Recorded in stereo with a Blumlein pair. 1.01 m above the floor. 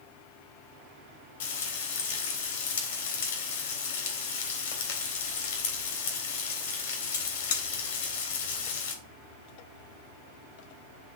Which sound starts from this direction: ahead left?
Frying, at 1.4 s.